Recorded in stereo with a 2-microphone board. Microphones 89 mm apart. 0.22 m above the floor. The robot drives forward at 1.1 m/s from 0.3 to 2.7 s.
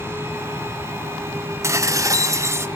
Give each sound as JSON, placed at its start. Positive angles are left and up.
{"t": 1.6, "sound": "dishes clattering", "side_deg": -30, "distance_m": 1.0}